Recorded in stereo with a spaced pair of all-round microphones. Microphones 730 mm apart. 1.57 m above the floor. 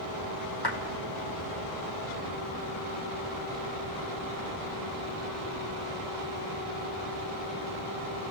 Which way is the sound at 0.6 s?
30° left (ahead or behind).